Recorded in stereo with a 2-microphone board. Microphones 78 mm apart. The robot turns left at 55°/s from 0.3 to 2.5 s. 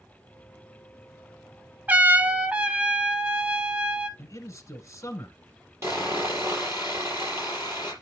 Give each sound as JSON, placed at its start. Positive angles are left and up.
{"t": 1.9, "sound": "a trumpet", "side_deg": -20, "distance_m": 0.6}
{"t": 4.2, "sound": "a man speaking", "side_deg": 40, "distance_m": 1.3}
{"t": 5.8, "sound": "sawing", "side_deg": -35, "distance_m": 4.5}